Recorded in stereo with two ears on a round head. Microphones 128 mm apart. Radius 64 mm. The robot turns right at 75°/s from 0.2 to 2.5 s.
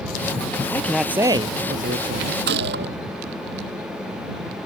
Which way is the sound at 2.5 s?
90° right.